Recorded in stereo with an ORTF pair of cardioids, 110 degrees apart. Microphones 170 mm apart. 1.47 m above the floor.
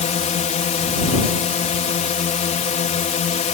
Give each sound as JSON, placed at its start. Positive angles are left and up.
{"t": 0.0, "sound": "a drone", "azimuth_deg": 45}